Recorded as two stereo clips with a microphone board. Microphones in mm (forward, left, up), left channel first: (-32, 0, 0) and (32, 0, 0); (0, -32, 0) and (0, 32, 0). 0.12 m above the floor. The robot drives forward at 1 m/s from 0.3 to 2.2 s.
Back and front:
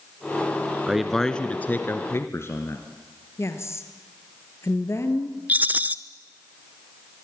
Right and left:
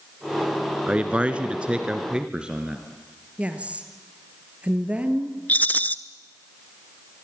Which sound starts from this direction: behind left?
A woman speaking, at 3.4 s.